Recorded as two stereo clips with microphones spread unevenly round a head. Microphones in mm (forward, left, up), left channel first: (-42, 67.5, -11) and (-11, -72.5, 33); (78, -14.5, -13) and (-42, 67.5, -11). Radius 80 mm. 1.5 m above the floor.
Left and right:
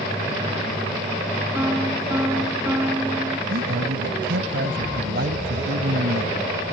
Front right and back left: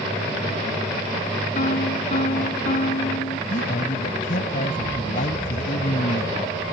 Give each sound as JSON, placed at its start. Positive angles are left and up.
{"t": 1.6, "sound": "a piano", "azimuth_deg": 0}
{"t": 3.5, "sound": "a man speaking", "azimuth_deg": -75}